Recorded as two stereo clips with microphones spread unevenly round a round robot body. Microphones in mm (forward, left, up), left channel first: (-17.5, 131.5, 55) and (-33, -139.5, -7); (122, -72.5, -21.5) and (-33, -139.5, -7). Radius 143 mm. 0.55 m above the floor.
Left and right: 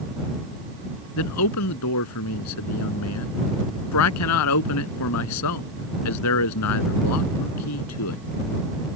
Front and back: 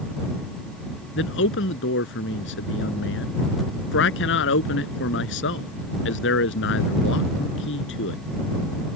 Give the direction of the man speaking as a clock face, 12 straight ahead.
10 o'clock.